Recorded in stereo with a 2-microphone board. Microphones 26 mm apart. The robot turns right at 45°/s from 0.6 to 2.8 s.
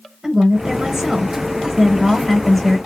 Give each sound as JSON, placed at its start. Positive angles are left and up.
{"t": 0.2, "sound": "a woman speaking", "side_deg": -20, "distance_m": 0.9}